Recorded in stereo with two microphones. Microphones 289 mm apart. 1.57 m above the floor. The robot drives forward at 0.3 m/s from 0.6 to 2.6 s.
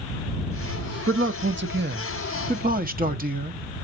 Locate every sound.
1.1 s a man speaking: 45° right (ahead or behind), 0.8 m; by 3.8 s 30° right (ahead or behind), 1.1 m